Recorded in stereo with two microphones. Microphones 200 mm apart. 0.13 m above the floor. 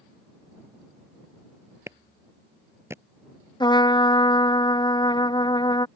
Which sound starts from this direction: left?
A trumpet, at 3.6 s.